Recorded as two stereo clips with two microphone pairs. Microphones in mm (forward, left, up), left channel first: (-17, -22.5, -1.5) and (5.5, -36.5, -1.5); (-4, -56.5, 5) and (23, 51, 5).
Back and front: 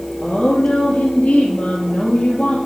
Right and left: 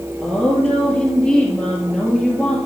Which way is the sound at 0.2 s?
170° left.